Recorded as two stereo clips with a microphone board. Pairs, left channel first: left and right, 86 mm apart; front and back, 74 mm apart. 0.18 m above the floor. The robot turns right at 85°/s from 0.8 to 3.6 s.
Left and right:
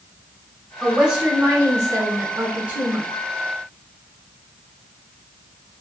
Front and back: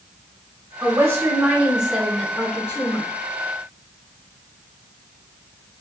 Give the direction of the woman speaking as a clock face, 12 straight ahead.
6 o'clock.